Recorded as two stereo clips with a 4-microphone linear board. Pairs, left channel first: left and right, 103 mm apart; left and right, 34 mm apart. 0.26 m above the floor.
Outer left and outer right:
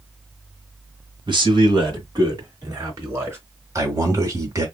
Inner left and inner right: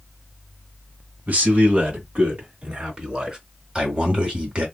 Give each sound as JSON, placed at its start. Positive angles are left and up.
{"t": 1.3, "sound": "a man speaking", "side_deg": -55, "distance_m": 2.0}
{"t": 3.8, "sound": "a man speaking", "side_deg": -30, "distance_m": 1.8}